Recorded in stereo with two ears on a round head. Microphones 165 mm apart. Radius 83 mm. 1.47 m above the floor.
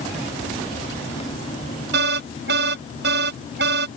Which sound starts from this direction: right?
An alarm, at 1.9 s.